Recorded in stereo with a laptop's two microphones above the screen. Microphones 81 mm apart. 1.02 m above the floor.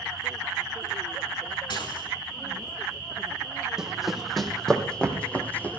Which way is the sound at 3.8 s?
5° right (ahead or behind).